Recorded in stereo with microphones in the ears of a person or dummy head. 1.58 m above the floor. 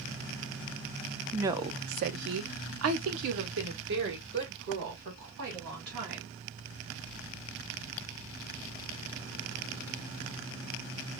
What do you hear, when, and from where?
1.3 s a woman speaking: 10° right (ahead or behind), 0.8 m; by 6.3 s 55° right (ahead or behind), 3 m